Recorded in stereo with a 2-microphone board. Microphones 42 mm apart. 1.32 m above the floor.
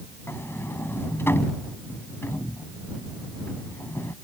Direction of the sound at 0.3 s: 70° left (ahead or behind).